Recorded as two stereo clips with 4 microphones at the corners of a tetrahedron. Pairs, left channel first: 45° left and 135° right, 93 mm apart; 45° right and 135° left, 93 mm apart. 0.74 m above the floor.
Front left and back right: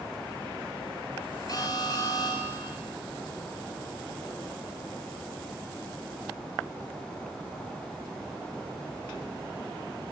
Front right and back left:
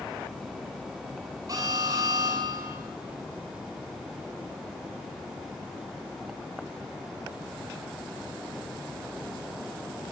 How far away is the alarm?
About 7.5 m.